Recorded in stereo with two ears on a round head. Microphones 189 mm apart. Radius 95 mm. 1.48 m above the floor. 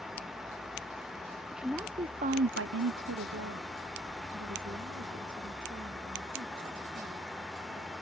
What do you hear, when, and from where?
1.5 s a woman speaking: centre (ahead or behind); by 7.9 s 40° right (ahead or behind)